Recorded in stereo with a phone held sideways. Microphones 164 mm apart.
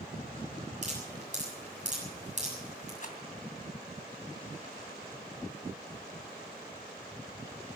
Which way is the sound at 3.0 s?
55° left (ahead or behind).